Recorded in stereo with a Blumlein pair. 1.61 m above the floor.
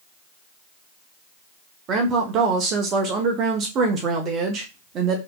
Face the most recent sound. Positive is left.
turn(degrees=-30)